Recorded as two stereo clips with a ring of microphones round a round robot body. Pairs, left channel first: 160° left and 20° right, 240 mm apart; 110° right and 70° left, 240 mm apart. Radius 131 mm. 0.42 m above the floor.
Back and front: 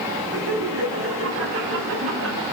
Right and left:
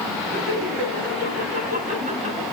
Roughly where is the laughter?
Ahead.